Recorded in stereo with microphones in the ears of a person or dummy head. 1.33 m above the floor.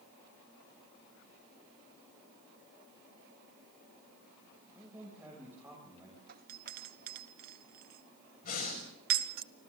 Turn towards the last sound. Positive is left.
turn(degrees=45)  # may be behind; listen again after turning